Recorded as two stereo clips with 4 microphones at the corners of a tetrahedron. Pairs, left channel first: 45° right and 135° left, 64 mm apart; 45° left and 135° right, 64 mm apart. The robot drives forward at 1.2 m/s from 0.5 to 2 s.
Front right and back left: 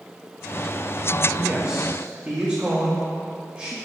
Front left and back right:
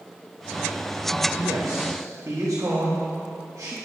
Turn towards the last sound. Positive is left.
turn(degrees=-165)